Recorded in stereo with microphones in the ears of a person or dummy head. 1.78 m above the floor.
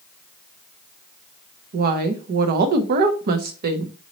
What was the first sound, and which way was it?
A woman speaking, 50° right (ahead or behind).